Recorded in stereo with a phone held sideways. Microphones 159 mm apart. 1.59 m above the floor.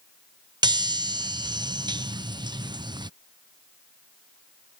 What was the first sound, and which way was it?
A chime, 25° right (ahead or behind).